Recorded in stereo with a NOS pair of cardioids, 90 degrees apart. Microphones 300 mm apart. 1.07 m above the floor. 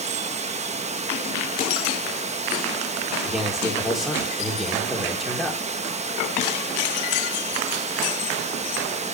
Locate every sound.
0.0 s running water: 25° right, 1.1 m
3.2 s a man speaking: straight ahead, 3.5 m